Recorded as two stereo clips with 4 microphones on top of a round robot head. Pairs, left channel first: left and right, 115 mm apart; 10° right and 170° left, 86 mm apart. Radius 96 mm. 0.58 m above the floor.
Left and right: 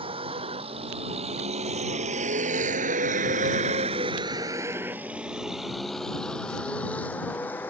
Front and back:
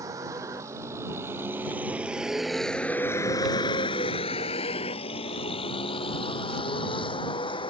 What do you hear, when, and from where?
0.0 s a vehicle: 130° right; by 7.7 s 15° left